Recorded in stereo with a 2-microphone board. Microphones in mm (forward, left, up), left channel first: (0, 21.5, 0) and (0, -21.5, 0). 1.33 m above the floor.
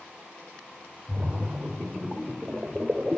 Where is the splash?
30° right (ahead or behind), 2 m.